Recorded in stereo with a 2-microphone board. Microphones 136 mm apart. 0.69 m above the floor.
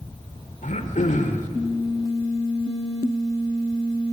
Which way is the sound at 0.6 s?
75° left (ahead or behind).